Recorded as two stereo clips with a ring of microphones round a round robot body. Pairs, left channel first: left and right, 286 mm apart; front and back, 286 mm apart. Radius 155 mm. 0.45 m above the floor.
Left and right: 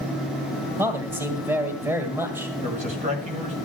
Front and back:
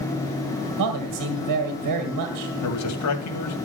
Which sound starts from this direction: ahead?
A man speaking, at 2.6 s.